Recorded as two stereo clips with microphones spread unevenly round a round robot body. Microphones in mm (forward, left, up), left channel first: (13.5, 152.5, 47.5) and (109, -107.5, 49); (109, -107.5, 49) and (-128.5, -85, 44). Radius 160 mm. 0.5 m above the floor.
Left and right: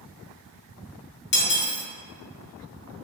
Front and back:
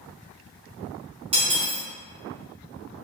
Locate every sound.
1.3 s cutlery clinking: 120° left, 0.5 m